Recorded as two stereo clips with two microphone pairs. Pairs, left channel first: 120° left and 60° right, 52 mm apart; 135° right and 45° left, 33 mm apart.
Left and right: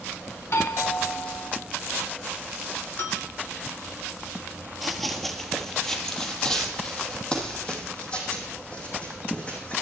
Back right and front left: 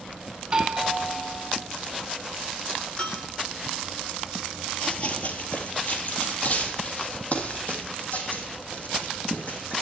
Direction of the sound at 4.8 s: 150° right.